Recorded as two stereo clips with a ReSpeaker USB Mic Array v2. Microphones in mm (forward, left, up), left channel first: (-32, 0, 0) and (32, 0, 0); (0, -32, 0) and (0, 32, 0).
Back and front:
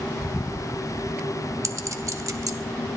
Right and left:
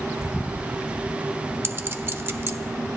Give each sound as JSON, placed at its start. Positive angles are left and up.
{"t": 1.6, "sound": "a clink", "azimuth_deg": 35, "distance_m": 0.8}